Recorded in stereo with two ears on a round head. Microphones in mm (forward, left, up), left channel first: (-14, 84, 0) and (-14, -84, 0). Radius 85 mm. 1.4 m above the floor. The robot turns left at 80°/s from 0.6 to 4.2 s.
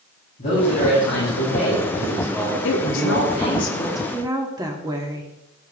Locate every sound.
0.4 s a man speaking: 140° left, 8 m; by 3.6 s 100° right, 8 m
2.6 s a woman speaking: 105° left, 2.5 m; by 5.3 s 20° right, 2.5 m